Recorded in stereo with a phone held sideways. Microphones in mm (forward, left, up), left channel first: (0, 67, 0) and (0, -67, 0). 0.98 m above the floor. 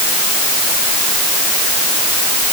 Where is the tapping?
I don't hear tapping.